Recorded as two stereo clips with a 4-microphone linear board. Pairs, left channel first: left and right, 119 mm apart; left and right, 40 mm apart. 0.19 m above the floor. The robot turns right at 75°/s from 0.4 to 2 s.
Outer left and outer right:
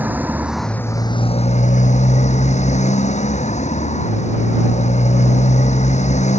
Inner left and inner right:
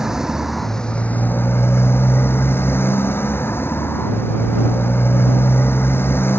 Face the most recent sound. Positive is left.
turn(degrees=105)